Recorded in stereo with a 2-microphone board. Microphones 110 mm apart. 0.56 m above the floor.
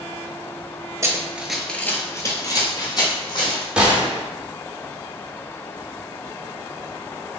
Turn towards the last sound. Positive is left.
turn(degrees=-10)  # may be behind; listen again after turning